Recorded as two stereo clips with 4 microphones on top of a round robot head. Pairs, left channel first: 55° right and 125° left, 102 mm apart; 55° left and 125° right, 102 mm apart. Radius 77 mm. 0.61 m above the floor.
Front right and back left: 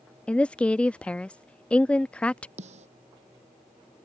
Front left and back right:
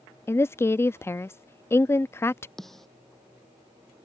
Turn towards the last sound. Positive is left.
turn(degrees=140)